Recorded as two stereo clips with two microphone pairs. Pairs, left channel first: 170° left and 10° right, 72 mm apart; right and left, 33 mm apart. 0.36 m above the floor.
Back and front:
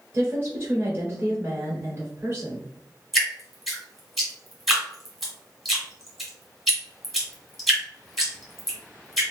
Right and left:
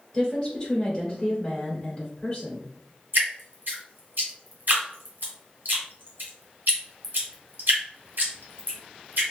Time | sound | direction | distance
0.1 | a woman speaking | 40° right | 1.4 m
3.1 | dripping | 80° left | 2.0 m